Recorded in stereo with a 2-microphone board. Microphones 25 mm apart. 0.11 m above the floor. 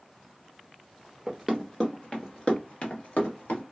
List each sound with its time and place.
1.3 s running footsteps: 5° right (ahead or behind), 0.8 m; by 3.6 s 70° left (ahead or behind), 1.8 m